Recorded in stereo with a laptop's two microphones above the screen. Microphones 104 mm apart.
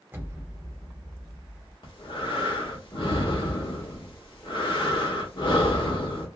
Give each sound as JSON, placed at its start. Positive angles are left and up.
{"t": 0.1, "sound": "an explosion", "side_deg": -20, "distance_m": 0.7}
{"t": 1.8, "sound": "breathing", "side_deg": 55, "distance_m": 1.1}